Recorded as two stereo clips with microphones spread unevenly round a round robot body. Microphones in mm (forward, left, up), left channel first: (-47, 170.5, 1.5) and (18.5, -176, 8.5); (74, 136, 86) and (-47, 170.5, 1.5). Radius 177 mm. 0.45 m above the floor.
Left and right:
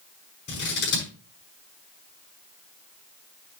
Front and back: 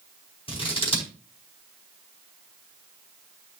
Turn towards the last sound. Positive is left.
turn(degrees=40)